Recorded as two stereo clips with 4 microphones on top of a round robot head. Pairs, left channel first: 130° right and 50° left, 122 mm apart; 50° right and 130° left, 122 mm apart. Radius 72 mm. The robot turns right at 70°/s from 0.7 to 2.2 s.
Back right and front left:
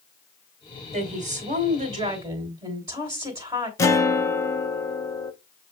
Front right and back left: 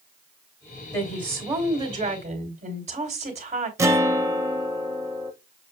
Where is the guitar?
Straight behind, 1.0 m.